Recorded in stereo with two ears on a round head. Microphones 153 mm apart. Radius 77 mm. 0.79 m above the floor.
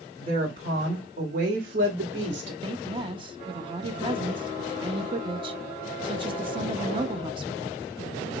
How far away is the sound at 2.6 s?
About 0.8 m.